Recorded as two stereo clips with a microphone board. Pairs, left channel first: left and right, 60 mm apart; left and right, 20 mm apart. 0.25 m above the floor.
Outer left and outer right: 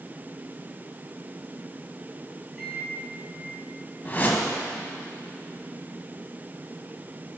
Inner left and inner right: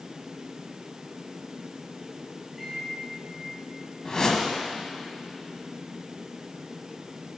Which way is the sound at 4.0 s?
35° left (ahead or behind).